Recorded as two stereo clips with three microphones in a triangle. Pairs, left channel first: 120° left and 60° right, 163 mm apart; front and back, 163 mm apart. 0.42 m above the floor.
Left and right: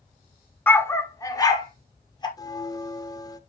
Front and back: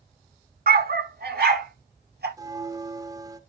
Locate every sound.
0.7 s a dog barking: 160° right, 0.9 m; by 2.3 s 175° right, 2.5 m
2.4 s a bell: 150° left, 0.8 m